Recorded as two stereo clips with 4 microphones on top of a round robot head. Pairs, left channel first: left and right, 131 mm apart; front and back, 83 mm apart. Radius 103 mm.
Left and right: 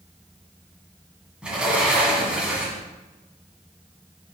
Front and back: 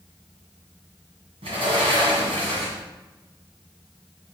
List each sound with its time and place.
1.4 s a sliding door: 175° right, 1.5 m